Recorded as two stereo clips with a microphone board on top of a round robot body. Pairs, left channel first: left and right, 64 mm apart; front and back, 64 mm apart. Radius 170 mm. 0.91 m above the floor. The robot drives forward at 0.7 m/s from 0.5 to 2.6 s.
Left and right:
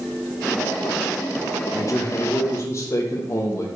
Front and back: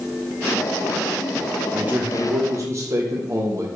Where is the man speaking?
115° left, 1.3 m; by 3.7 s 135° left, 1.6 m.